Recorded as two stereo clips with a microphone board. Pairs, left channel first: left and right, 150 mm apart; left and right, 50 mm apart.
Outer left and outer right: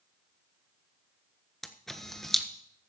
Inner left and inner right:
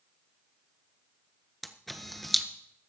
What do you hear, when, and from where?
1.6 s a camera shutter: 5° left (ahead or behind), 1.3 m